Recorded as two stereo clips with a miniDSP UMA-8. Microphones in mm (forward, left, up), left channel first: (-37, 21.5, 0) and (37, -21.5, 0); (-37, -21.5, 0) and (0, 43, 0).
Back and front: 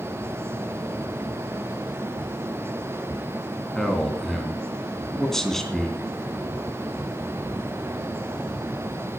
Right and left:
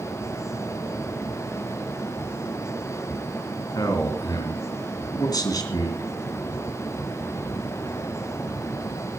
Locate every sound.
3.8 s a man speaking: 125° right, 3 m